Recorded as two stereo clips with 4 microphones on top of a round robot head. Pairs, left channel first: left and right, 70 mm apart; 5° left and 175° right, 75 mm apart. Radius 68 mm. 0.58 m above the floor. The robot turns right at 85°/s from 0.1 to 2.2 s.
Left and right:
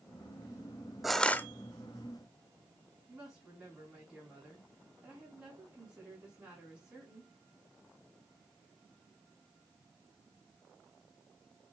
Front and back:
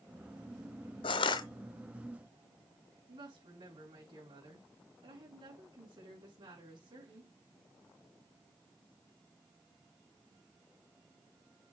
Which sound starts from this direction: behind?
A woman speaking, at 3.1 s.